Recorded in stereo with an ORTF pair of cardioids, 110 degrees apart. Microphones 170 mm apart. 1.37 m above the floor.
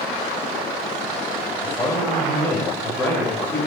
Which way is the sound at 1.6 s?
10° left.